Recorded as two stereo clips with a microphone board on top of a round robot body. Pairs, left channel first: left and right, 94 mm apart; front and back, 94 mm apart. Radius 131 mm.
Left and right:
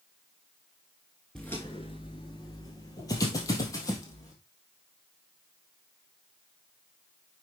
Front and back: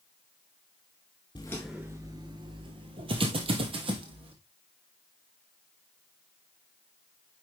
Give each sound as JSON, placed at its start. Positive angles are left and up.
{"t": 1.4, "sound": "footsteps", "azimuth_deg": 10, "distance_m": 0.7}